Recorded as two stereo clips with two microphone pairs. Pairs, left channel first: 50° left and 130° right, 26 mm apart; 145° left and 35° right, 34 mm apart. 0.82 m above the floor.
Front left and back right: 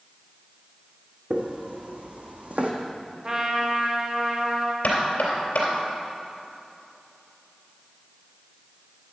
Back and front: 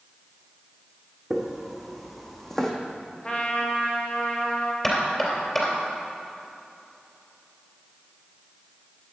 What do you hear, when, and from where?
1.3 s footsteps: 115° right, 2 m; by 2.7 s 140° right, 1.5 m
3.2 s a trumpet: 170° right, 1.4 m
4.8 s knocking: 65° left, 3 m